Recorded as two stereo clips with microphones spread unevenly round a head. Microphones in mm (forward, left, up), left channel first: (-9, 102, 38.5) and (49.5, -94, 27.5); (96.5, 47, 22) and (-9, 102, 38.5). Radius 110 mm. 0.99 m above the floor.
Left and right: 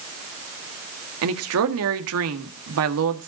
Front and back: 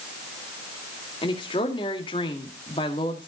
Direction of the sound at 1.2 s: 90° right.